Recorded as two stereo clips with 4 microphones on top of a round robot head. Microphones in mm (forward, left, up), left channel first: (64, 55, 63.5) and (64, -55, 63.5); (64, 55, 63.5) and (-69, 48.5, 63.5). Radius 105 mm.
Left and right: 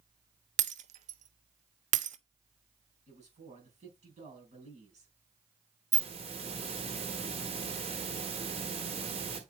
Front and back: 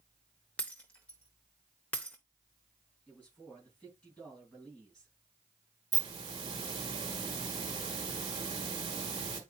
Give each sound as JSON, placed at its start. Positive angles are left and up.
{"t": 0.6, "sound": "breaking glass", "azimuth_deg": -80, "distance_m": 0.6}
{"t": 3.1, "sound": "a man speaking", "azimuth_deg": -80, "distance_m": 5.0}
{"t": 5.9, "sound": "a hiss", "azimuth_deg": -115, "distance_m": 1.4}